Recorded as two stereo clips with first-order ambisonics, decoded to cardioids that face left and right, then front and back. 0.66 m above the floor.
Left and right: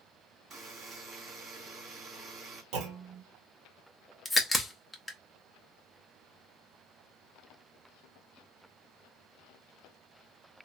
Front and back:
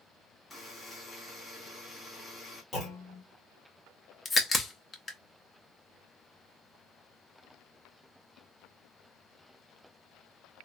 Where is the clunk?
65° right, 1.3 m.